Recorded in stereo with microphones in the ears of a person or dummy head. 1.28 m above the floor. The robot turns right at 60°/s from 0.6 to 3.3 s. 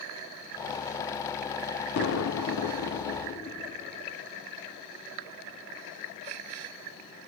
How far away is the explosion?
About 0.6 m.